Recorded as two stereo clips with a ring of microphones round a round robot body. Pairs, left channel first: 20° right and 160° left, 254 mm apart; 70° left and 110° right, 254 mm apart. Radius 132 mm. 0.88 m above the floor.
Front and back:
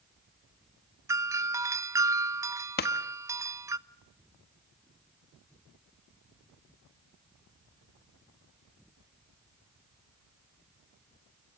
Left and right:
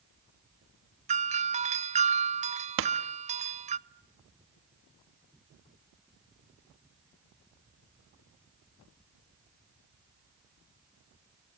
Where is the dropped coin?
I don't hear a dropped coin.